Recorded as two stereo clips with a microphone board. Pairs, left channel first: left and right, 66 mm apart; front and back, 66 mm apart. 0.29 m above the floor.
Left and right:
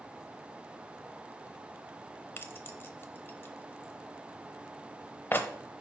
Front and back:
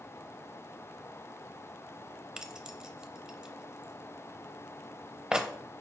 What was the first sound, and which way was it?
Keys jangling, 110° left.